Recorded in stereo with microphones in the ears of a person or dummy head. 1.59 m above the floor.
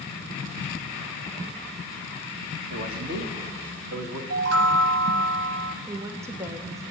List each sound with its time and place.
2.7 s a man speaking: 55° right (ahead or behind), 1.6 m; by 4.2 s 50° right (ahead or behind), 2.5 m
4.3 s a chime: 70° right (ahead or behind), 0.6 m
5.8 s a woman speaking: 20° right (ahead or behind), 1.1 m